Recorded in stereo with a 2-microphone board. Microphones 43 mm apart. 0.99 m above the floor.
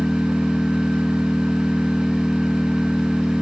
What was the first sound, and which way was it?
An engine running, 25° left (ahead or behind).